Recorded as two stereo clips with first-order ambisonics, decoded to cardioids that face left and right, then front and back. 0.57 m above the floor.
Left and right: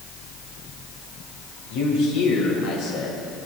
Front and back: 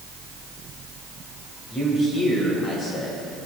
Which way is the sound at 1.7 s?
70° left.